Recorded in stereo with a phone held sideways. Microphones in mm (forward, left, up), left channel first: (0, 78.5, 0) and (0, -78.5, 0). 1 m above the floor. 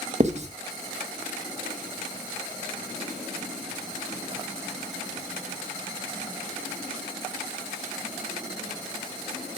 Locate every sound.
0.2 s writing: 45° right (ahead or behind), 0.9 m